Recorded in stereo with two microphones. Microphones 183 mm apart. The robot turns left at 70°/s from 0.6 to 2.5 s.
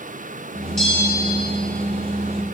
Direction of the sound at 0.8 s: 5° left (ahead or behind).